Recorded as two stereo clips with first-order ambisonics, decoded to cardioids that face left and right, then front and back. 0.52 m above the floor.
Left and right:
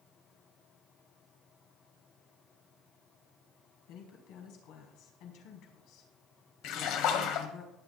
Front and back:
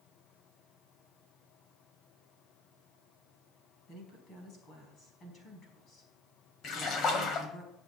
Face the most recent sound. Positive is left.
turn(degrees=55)